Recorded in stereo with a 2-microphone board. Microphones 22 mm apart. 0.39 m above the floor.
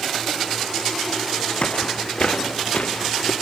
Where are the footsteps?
60° left (ahead or behind), 1.0 m; by 3.3 s 65° left (ahead or behind), 2.0 m.